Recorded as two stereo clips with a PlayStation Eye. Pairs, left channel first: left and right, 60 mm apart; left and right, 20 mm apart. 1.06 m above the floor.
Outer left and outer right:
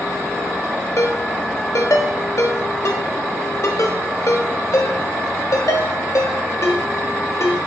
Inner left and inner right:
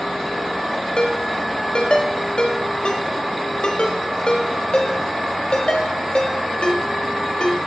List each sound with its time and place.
1.0 s a ringtone: 60° left (ahead or behind), 1.1 m